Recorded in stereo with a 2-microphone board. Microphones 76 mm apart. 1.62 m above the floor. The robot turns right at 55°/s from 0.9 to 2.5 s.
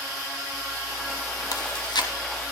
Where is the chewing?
70° left (ahead or behind), 3 m; by 2.1 s 75° left (ahead or behind), 3 m.